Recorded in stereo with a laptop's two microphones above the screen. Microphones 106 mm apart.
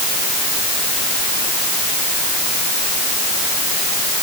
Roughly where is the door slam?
No door slam in this recording.